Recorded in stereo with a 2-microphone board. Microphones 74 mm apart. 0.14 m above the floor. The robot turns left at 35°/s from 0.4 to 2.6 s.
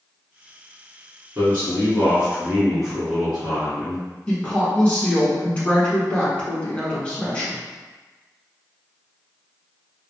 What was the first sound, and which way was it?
A man speaking, 120° right.